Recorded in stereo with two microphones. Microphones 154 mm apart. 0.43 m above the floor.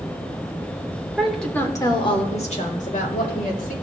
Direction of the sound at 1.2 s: 5° right (ahead or behind).